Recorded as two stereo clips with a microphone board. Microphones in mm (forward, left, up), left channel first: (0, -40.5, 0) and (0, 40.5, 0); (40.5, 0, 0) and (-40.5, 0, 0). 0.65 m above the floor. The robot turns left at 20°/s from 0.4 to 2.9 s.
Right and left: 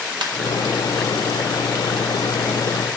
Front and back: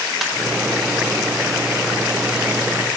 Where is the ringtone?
90° left, 1.2 m.